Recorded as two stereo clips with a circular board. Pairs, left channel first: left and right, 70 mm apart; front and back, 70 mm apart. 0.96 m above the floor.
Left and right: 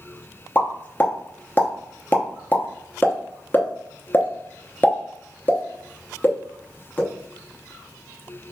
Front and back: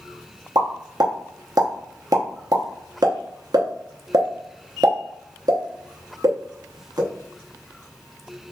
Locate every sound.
0.6 s a pop: 150° left, 0.8 m